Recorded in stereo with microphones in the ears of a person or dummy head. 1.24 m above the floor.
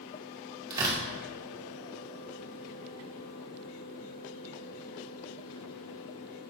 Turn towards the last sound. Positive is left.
turn(degrees=-25)  # may be behind; listen again after turning